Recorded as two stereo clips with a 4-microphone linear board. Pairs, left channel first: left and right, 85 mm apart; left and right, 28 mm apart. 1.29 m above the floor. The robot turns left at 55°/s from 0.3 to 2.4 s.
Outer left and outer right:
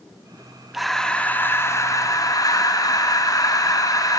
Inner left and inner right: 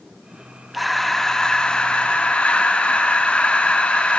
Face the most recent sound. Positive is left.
turn(degrees=90)